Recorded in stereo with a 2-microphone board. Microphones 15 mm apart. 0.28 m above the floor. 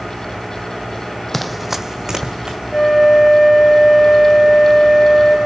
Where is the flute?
15° right (ahead or behind), 4.5 m.